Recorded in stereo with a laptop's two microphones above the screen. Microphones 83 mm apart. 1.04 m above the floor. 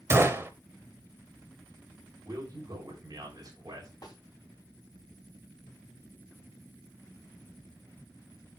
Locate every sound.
0.1 s a gunshot: 30° right (ahead or behind), 0.9 m
2.2 s a man speaking: 50° right (ahead or behind), 3.5 m
4.0 s a snare drum: 55° left (ahead or behind), 2.0 m